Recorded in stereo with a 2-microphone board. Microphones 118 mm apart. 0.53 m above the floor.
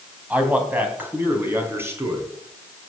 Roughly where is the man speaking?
Centre.